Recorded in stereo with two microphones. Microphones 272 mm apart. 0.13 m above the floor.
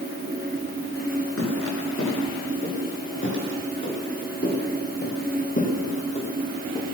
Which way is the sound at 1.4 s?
55° left (ahead or behind).